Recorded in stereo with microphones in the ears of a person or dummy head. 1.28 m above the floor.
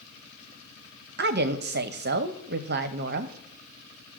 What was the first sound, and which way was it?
A woman speaking, 50° right (ahead or behind).